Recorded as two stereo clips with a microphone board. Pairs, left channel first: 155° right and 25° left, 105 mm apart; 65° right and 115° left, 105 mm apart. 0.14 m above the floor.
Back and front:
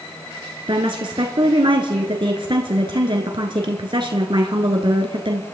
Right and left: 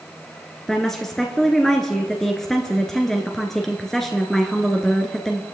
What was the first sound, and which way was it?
A woman speaking, 20° left.